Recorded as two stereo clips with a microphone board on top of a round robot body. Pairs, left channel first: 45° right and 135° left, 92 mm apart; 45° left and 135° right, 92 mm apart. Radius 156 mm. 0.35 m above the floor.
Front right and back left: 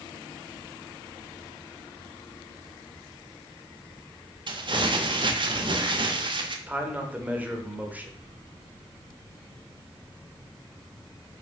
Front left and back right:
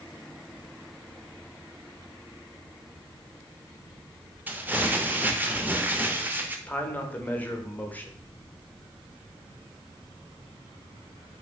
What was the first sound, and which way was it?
Crumpling, 155° left.